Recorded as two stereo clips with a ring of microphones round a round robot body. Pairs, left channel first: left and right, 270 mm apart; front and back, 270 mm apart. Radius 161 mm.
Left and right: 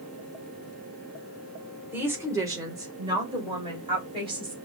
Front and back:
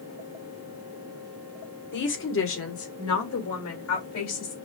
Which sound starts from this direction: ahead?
A woman speaking, at 1.9 s.